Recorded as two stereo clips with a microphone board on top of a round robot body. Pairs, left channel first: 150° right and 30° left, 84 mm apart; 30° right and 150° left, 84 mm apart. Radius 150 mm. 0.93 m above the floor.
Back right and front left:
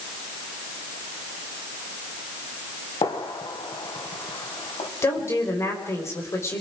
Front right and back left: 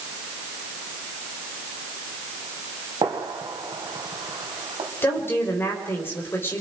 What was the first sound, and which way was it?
A gunshot, 175° right.